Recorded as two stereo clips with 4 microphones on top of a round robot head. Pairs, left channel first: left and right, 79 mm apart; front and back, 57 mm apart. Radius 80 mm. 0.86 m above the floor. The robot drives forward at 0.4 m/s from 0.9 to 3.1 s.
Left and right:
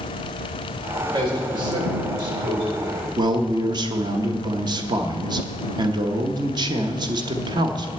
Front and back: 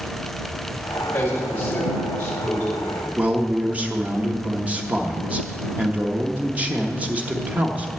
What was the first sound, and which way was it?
A man speaking, 65° right.